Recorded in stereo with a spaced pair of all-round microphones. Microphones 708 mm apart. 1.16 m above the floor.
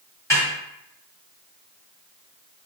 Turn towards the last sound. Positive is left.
turn(degrees=5)  # may be behind; listen again after turning